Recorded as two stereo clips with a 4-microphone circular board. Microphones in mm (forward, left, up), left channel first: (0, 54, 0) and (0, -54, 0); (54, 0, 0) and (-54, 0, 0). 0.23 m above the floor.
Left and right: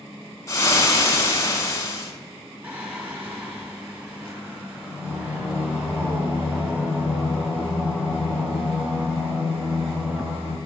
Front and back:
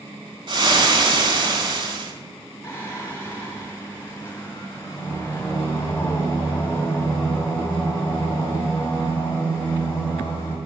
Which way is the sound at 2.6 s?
50° right.